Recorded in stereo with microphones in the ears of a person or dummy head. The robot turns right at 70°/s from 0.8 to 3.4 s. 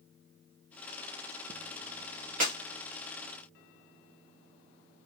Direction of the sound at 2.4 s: 40° right (ahead or behind).